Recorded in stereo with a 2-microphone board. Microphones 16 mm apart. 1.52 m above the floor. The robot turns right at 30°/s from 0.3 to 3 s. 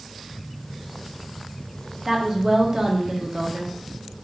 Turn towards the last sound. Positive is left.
turn(degrees=-50)  # may be behind; listen again after turning